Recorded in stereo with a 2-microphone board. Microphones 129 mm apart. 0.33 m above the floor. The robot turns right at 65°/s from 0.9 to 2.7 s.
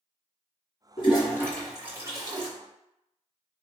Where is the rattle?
No rattle in this recording.